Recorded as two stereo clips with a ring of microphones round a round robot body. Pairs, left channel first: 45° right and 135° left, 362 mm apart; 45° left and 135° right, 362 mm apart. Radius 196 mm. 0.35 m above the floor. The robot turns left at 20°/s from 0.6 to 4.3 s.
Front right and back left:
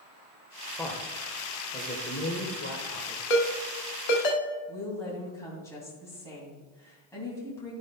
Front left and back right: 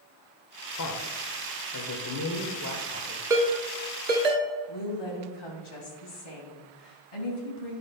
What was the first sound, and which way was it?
A man speaking, 40° left.